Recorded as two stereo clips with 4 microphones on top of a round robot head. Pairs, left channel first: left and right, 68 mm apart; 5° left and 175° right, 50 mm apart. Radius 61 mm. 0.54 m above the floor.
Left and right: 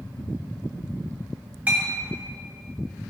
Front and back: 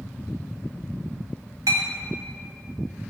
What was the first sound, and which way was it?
A clink, 160° right.